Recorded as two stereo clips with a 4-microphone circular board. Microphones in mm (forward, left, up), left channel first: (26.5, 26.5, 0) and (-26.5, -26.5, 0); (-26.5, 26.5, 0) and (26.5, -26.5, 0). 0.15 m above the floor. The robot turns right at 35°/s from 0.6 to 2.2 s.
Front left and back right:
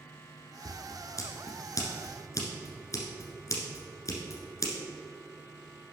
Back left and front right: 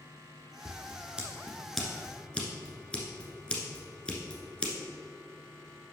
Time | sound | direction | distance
0.7 | scissors | 10° left | 1.3 m